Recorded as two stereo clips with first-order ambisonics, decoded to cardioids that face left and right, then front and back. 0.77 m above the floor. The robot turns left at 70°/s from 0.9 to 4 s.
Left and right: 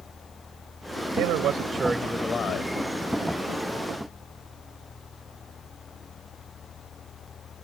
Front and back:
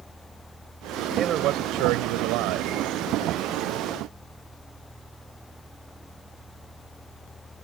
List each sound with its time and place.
1.1 s a man speaking: 115° right; by 2.7 s 135° left